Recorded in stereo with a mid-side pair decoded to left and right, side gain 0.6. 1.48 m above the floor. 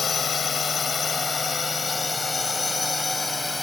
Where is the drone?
30° left; by 3.6 s 10° left.